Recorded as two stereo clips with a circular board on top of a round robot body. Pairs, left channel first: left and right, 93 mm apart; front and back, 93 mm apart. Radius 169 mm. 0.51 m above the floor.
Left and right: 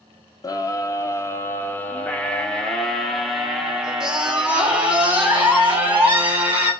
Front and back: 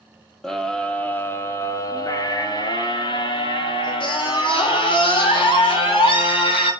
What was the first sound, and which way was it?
A scream, 85° left.